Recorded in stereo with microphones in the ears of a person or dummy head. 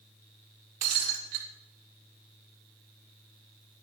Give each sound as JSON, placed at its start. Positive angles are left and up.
{"t": 0.8, "sound": "breaking glass", "side_deg": -45, "distance_m": 2.5}